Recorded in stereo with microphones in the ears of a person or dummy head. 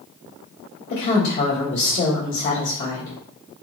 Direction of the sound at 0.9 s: 60° left (ahead or behind).